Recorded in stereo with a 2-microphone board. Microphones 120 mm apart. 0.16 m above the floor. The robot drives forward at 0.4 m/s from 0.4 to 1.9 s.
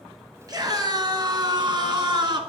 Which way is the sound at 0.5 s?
35° right (ahead or behind).